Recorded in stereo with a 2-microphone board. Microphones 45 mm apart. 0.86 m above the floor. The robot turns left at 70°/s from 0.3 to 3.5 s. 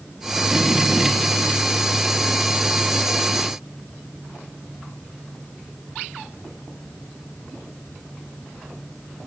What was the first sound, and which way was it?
Only background noise.